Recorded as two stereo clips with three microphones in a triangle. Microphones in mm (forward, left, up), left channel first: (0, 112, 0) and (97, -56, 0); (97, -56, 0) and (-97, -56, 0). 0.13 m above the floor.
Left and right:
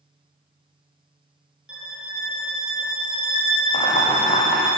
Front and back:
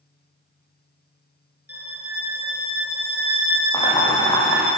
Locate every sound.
1.7 s a violin: 25° left, 3 m
3.7 s boiling: 70° left, 6 m